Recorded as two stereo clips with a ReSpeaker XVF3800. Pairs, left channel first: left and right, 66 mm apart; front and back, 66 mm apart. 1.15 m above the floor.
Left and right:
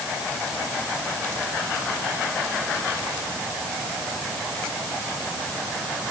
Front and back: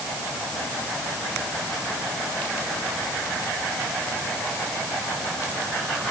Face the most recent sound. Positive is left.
No sound to turn to.